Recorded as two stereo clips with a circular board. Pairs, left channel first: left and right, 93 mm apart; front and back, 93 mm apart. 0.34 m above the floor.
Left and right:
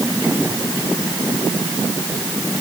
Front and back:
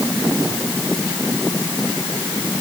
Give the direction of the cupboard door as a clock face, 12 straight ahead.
I don't hear a cupboard door.